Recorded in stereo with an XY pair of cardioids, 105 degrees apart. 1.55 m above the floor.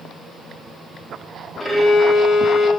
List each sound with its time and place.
1.6 s a violin: 20° left, 0.8 m